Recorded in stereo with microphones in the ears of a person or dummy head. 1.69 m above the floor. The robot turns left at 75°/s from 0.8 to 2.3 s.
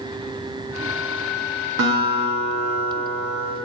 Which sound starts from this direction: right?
A guitar, at 1.8 s.